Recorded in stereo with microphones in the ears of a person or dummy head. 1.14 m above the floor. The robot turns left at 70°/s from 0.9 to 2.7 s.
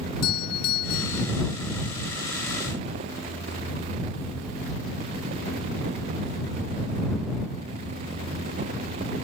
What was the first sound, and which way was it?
A doorbell, 50° left (ahead or behind).